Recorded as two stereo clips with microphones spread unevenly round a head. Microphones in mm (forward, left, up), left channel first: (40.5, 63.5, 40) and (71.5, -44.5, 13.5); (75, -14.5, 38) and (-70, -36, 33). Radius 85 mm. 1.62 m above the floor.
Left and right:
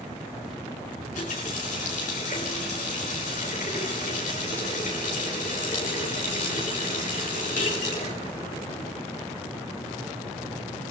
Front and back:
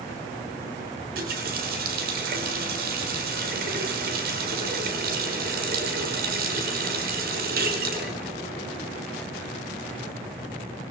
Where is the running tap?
155° left, 4 m.